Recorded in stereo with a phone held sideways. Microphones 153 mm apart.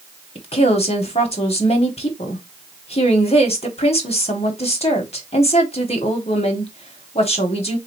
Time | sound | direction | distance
0.3 | a woman speaking | 40° left (ahead or behind) | 1.1 m